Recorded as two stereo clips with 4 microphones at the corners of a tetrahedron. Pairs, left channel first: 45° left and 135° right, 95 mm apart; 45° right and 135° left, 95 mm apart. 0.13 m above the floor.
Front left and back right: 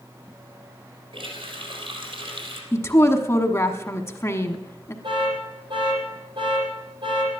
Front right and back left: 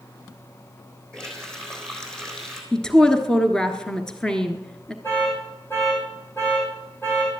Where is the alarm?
110° right, 5 m.